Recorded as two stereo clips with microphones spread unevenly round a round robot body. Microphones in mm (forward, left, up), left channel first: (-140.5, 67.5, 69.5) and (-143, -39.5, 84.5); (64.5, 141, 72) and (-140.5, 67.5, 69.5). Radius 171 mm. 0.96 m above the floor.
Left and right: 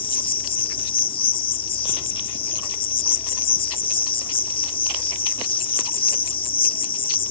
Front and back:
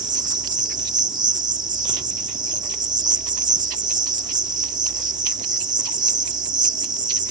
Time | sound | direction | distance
0.0 | an insect | 130° left | ?